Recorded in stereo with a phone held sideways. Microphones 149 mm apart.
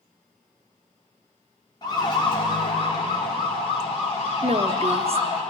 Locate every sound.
1.8 s a siren: 30° left (ahead or behind), 2.5 m; by 5.4 s 50° left (ahead or behind), 5 m
4.4 s a woman speaking: 45° right (ahead or behind), 0.7 m